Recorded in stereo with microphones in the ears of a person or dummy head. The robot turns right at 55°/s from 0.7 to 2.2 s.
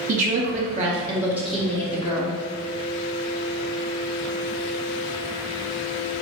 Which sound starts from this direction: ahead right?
A woman speaking, at 0.1 s.